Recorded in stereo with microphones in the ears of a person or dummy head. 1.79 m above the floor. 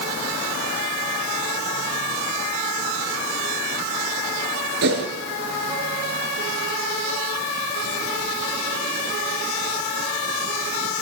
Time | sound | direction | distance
4.8 | a whoosh | 60° right (ahead or behind) | 4.5 m